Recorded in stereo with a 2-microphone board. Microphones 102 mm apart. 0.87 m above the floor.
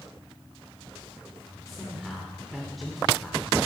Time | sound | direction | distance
1.7 | a man speaking | centre (ahead or behind) | 2.5 m